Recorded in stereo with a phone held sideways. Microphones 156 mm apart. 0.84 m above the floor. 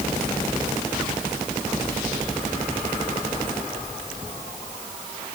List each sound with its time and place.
Only background noise.